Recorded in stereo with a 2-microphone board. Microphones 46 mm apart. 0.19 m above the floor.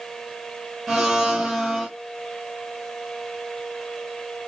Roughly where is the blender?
Centre.